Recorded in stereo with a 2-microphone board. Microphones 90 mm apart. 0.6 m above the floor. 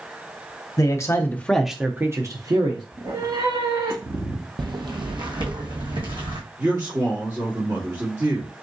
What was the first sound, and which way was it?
A man speaking, 45° left (ahead or behind).